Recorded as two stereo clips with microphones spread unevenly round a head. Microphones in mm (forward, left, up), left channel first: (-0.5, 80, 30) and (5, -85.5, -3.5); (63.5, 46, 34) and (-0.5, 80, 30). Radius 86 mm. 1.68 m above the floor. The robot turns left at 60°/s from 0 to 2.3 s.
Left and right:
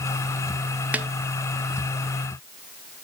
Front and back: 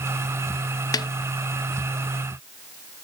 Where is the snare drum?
Straight ahead, 0.8 m; by 1.1 s 10° right, 0.8 m.